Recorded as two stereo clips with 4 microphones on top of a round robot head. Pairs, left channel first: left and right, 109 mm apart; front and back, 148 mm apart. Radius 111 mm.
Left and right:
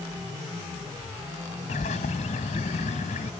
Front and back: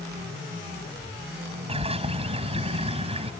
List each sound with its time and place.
1.7 s a bird: 130° left